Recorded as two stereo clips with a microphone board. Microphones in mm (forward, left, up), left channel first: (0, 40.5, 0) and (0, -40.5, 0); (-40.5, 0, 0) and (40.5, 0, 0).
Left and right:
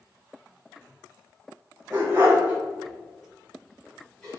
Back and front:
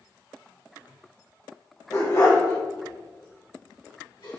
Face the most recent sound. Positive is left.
turn(degrees=170)